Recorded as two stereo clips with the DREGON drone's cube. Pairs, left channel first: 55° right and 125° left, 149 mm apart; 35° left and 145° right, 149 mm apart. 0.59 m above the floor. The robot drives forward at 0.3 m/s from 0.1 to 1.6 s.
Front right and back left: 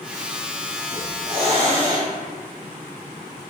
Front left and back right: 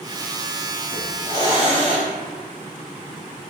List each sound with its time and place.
0.9 s a hiss: 90° left, 1.6 m; by 2.1 s 95° left, 1.6 m